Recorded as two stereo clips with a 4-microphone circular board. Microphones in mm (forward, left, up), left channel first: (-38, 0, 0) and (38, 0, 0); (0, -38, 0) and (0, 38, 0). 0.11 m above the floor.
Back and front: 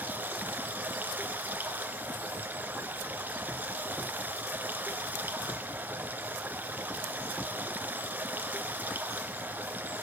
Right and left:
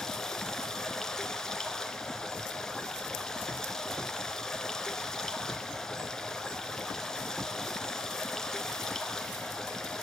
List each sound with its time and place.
0.0 s running water: 20° right, 1.5 m